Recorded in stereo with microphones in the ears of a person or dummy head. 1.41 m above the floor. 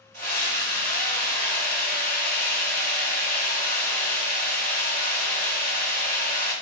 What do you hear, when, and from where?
0.1 s a scream: 85° right, 1.3 m